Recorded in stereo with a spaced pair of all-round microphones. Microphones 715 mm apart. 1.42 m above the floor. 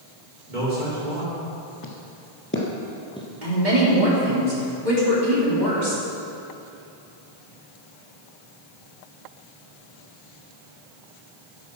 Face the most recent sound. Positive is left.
turn(degrees=-75)  # may be behind; listen again after turning